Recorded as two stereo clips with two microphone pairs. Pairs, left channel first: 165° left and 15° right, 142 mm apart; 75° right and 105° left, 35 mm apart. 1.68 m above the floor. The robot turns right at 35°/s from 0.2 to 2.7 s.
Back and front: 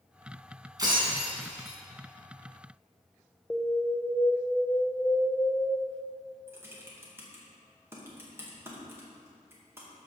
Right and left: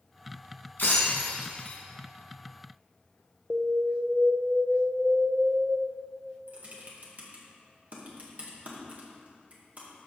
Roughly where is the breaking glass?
Right.